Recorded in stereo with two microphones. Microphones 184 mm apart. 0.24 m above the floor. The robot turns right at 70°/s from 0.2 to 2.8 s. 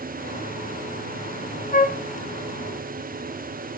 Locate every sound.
1.7 s a flute: 45° left (ahead or behind), 0.9 m; by 2.0 s 55° left (ahead or behind), 0.9 m